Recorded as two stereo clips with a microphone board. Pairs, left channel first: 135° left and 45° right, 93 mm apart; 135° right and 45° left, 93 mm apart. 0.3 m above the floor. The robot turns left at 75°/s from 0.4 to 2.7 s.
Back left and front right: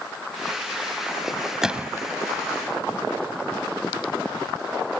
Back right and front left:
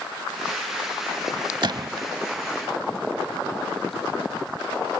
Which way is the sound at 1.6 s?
40° left.